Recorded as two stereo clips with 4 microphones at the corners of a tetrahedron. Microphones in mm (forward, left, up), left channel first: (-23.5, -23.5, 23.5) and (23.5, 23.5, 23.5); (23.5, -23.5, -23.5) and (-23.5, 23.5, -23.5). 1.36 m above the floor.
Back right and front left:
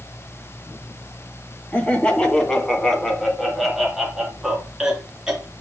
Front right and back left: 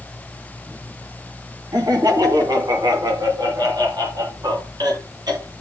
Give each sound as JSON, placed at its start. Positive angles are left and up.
{"t": 1.7, "sound": "laughter", "azimuth_deg": 155, "distance_m": 2.5}